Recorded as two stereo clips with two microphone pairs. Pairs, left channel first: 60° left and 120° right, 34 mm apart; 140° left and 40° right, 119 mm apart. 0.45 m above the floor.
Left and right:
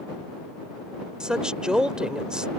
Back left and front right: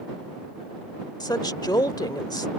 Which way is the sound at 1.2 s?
175° right.